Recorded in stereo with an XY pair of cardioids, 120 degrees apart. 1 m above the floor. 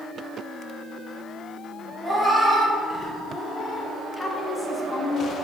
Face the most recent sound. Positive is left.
turn(degrees=20)